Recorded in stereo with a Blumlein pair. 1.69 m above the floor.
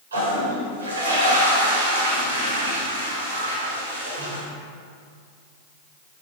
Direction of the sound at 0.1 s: 70° right.